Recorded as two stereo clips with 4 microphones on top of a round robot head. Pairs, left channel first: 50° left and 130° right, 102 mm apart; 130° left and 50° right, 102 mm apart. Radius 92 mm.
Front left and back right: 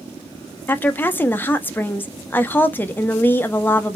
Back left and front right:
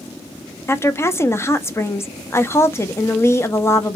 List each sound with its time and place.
0.7 s a woman speaking: 100° left, 0.8 m